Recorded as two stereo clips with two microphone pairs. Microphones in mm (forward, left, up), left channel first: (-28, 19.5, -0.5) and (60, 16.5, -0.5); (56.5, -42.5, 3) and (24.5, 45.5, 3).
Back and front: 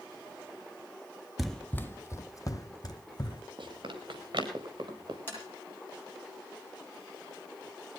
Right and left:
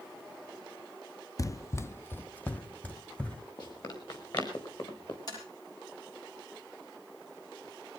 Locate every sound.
1.4 s running footsteps: 85° right, 0.5 m; by 3.4 s 145° right, 1.8 m
3.6 s running footsteps: 30° right, 4.5 m; by 5.2 s 35° right, 5.5 m
5.3 s tapping: 115° right, 8.5 m